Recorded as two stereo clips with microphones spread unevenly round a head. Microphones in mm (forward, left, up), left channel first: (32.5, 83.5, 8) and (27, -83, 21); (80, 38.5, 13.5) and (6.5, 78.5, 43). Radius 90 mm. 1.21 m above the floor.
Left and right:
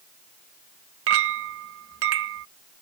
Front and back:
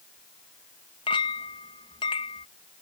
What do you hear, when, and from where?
1.1 s a clink: 90° right